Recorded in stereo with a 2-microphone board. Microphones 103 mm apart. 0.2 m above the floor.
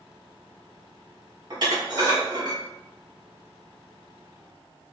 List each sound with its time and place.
1.5 s dishes clattering: 45° right (ahead or behind), 1.0 m